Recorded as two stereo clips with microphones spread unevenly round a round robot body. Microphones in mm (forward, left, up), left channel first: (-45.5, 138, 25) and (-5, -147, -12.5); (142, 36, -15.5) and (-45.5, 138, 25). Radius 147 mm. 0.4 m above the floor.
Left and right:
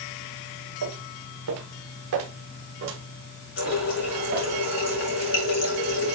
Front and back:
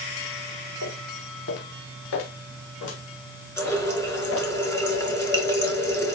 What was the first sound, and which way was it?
Footsteps, 50° right.